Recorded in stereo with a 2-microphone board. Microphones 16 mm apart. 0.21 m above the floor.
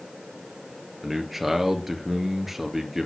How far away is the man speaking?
About 3.5 m.